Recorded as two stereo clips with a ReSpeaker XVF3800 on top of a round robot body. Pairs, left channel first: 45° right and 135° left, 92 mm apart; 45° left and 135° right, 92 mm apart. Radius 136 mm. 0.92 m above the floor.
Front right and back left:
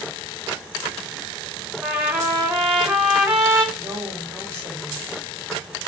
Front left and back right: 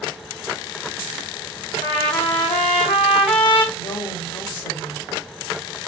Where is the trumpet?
65° left, 1.3 m.